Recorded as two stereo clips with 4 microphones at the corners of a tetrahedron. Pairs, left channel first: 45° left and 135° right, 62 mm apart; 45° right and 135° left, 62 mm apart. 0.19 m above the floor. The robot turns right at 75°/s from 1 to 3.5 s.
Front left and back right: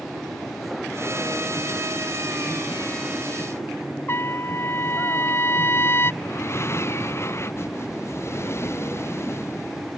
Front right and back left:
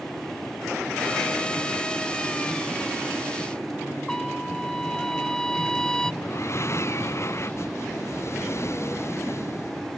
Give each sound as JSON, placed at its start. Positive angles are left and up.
{"t": 4.1, "sound": "a trumpet", "azimuth_deg": 30}
{"t": 6.2, "sound": "breathing", "azimuth_deg": 0}